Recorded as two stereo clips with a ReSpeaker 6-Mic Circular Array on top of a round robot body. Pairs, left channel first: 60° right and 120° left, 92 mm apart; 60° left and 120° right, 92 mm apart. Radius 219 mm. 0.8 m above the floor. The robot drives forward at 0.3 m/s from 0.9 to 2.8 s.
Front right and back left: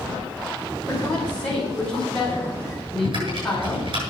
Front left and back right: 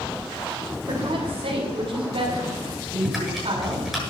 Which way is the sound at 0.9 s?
140° right.